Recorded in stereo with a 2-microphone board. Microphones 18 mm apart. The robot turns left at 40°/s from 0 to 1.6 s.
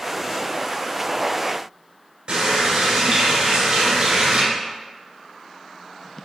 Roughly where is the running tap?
Right.